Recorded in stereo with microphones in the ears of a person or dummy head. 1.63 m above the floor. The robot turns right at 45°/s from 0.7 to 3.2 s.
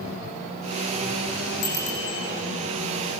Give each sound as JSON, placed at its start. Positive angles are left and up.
{"t": 1.6, "sound": "a bicycle bell", "side_deg": 75, "distance_m": 9.0}